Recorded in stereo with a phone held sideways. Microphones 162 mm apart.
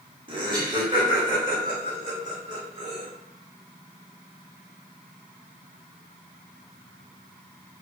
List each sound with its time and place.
0.3 s laughter: 30° right (ahead or behind), 1.3 m